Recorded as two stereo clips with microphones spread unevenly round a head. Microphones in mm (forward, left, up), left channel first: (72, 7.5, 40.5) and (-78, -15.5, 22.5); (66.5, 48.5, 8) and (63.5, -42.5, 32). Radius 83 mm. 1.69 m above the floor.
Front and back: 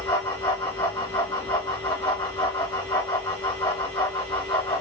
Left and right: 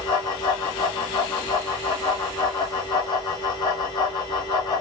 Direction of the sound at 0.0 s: 65° left.